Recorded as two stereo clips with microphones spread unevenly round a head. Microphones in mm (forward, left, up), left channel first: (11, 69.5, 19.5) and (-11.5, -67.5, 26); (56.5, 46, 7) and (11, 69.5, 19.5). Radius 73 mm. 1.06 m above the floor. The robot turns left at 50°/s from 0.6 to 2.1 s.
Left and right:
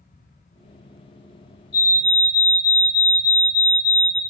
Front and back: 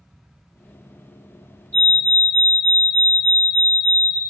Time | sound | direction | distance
1.7 | a fire alarm | 30° left | 5.5 m